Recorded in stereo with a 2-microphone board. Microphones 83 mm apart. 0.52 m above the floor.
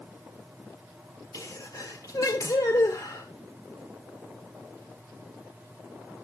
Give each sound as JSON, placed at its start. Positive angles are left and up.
{"t": 1.3, "sound": "a sneeze", "side_deg": 50, "distance_m": 1.3}